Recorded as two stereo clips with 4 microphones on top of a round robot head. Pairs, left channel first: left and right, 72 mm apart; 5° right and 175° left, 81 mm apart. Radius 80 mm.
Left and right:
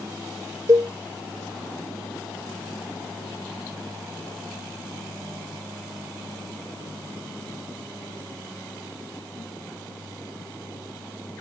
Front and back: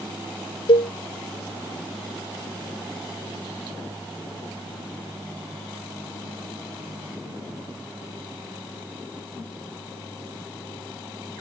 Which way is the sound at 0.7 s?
35° right.